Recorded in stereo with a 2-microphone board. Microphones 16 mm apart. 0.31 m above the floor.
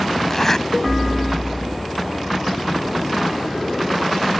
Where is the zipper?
25° left (ahead or behind).